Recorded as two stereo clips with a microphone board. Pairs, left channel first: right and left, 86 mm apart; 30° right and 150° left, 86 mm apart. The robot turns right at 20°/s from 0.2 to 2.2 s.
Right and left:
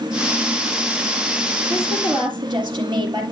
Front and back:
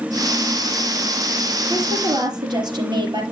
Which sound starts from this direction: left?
A woman speaking, at 1.7 s.